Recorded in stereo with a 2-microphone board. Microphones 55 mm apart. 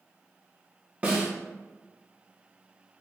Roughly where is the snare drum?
Right.